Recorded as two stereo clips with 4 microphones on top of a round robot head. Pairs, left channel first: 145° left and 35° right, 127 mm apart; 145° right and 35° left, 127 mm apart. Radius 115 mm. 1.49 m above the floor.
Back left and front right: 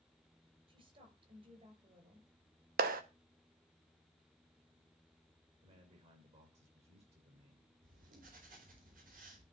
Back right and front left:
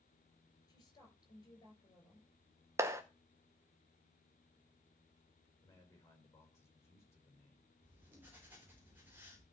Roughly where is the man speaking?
Right.